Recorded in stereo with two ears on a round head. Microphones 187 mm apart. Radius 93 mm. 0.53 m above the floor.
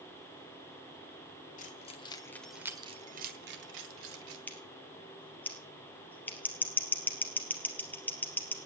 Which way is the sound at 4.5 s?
10° left (ahead or behind).